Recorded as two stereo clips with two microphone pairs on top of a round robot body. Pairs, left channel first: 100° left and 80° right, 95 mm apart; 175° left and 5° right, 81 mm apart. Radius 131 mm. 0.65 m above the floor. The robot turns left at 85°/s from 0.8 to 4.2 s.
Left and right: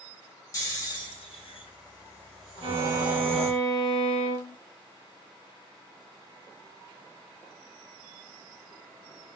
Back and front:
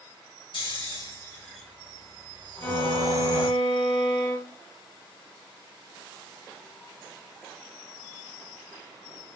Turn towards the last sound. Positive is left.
turn(degrees=110)